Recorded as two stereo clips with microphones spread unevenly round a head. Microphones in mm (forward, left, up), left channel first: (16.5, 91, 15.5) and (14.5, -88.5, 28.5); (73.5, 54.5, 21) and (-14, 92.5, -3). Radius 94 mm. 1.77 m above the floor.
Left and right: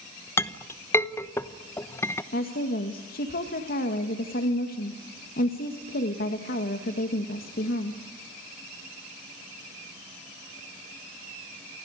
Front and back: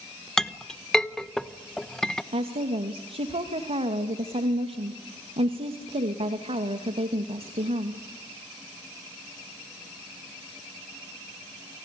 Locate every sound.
0.4 s a clink: 20° left, 0.9 m
2.3 s a woman speaking: 135° left, 2.5 m